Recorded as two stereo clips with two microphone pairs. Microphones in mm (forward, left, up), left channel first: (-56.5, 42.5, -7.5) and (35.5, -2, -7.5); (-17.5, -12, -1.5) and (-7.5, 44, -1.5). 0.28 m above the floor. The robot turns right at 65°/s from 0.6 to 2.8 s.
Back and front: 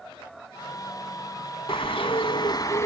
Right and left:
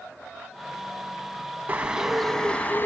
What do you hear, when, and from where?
1.7 s a bird: 135° left, 1.1 m; by 2.9 s 150° right, 1.1 m